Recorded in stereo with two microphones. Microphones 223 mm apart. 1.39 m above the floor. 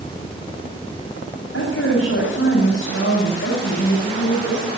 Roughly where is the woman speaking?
Left.